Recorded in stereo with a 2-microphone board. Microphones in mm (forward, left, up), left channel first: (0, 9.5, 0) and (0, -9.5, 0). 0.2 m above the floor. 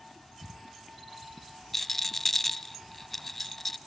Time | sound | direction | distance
1.7 | a rattle | 10° left (ahead or behind) | 0.7 m